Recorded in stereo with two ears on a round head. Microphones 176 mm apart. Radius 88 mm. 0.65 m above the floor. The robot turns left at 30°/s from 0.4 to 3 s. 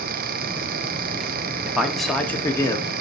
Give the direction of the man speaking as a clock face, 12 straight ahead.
6 o'clock.